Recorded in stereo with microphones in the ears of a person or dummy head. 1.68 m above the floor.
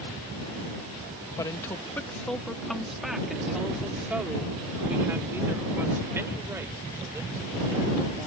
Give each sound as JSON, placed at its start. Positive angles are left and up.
{"t": 1.4, "sound": "a woman speaking", "side_deg": 15}